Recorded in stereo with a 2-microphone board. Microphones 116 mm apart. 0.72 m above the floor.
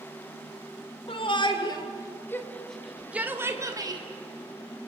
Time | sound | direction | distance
1.1 | a shout | 50° left (ahead or behind) | 3 m